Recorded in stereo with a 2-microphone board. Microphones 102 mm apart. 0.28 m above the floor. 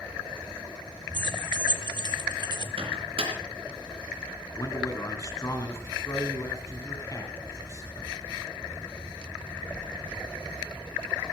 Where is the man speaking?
35° left (ahead or behind), 3 m.